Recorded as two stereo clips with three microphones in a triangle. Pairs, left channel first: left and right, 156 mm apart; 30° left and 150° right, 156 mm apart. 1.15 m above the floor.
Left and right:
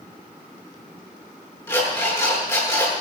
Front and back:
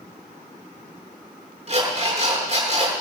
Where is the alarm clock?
165° left, 8 m.